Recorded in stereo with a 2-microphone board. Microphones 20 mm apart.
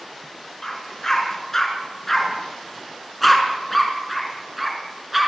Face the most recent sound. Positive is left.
turn(degrees=-5)  # may be behind; listen again after turning